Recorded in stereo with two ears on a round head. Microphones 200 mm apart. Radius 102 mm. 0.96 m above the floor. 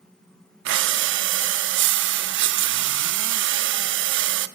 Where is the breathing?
55° right (ahead or behind), 0.6 m.